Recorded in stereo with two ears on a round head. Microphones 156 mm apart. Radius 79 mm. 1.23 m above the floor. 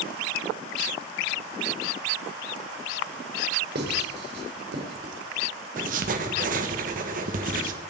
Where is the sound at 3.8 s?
65° right (ahead or behind), 3.5 m.